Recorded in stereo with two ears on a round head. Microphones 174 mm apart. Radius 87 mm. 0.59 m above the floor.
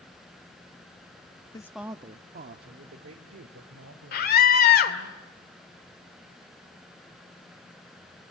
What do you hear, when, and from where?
1.5 s a woman speaking: 20° left (ahead or behind), 0.8 m; by 5.1 s 80° right, 4 m
4.1 s a scream: 50° left (ahead or behind), 2 m